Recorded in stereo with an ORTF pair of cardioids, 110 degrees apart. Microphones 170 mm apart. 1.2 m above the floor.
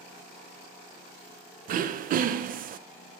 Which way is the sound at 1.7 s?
55° right.